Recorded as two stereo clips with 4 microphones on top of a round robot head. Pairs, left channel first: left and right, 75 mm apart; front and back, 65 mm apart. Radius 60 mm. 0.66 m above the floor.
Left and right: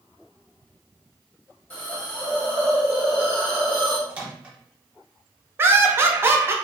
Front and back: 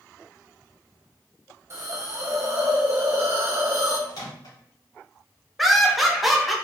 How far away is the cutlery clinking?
No cutlery clinking in this recording.